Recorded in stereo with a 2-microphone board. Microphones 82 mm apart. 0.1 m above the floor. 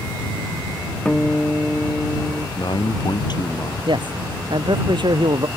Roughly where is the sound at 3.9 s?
Right.